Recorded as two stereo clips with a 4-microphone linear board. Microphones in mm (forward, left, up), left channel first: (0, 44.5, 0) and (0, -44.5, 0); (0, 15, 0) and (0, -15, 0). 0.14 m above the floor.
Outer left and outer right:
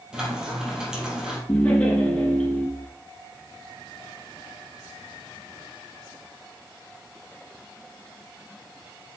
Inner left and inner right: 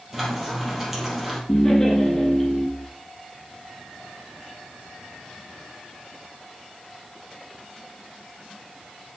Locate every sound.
0.1 s frying: 10° right (ahead or behind), 4.5 m
1.5 s laughter: 10° left (ahead or behind), 5 m